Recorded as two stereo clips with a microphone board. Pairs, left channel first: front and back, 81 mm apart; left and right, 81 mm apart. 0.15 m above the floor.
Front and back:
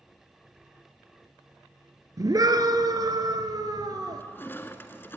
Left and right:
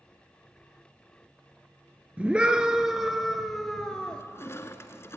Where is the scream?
160° right, 2 m; by 4.2 s 165° left, 2 m.